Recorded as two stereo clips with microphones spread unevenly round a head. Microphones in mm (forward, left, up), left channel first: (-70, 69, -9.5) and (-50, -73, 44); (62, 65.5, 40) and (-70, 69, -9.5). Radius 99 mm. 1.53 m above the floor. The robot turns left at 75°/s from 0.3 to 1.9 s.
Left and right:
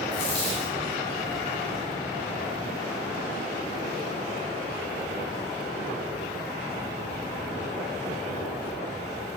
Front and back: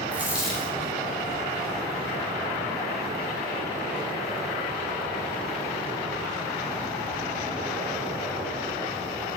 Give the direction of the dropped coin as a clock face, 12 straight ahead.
9 o'clock.